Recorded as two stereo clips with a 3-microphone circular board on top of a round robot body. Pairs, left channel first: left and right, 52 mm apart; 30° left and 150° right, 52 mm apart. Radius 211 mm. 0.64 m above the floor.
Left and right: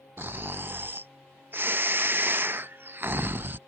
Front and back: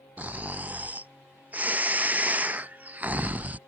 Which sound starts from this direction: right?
Snoring, at 0.2 s.